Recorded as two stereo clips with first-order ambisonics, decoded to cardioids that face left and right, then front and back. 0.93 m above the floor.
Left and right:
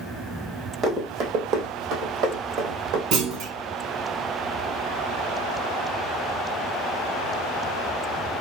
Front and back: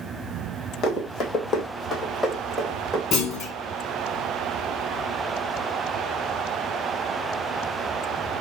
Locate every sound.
0.8 s running footsteps: 35° right, 1.5 m; by 3.0 s 95° right, 1.8 m
3.1 s a clunk: 55° right, 1.0 m